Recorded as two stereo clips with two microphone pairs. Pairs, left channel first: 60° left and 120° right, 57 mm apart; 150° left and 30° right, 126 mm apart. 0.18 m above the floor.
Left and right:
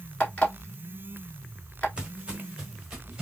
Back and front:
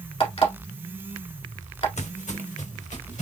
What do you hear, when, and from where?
0.2 s an alarm clock: 120° left, 1.6 m
2.0 s footsteps: 165° left, 0.6 m; by 3.2 s 160° left, 1.3 m